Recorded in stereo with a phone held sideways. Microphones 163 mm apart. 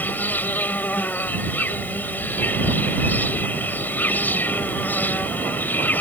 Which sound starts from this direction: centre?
An insect, at 0.0 s.